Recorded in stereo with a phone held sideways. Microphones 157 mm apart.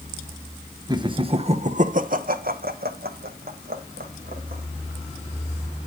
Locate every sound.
0.9 s laughter: 25° right (ahead or behind), 1.0 m; by 4.6 s 70° right (ahead or behind), 1.8 m